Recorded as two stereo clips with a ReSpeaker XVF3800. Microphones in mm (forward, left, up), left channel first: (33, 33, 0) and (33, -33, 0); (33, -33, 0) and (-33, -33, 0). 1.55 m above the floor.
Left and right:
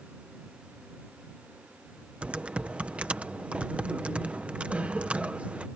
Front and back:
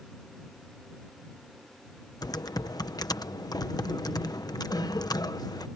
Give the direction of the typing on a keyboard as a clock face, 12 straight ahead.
1 o'clock.